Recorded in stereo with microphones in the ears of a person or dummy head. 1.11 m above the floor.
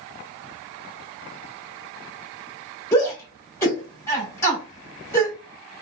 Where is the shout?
15° left (ahead or behind), 2 m.